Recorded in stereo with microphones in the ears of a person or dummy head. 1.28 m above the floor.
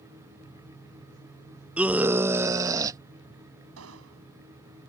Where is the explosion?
85° right.